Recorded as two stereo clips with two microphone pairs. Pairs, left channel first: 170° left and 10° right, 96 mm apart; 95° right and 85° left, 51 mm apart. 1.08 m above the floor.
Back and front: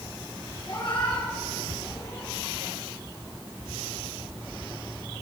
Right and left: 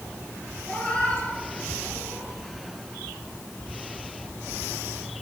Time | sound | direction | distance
0.7 | a cat meowing | 165° right | 4 m